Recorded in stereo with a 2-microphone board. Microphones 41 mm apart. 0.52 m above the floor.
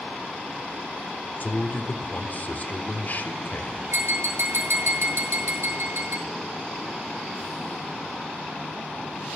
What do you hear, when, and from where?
1.4 s a man speaking: 45° left (ahead or behind), 1.7 m
3.9 s tapping: 70° right (ahead or behind), 6.5 m